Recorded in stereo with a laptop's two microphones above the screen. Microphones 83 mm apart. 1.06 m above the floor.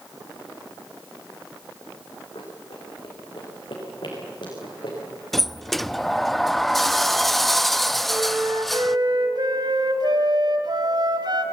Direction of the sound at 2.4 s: 70° left (ahead or behind).